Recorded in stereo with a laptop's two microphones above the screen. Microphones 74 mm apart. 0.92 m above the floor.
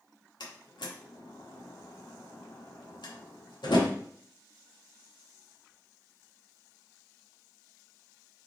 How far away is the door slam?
About 1.2 m.